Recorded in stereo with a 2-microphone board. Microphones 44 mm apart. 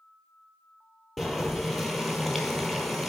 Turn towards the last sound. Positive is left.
turn(degrees=5)  # may be behind; listen again after turning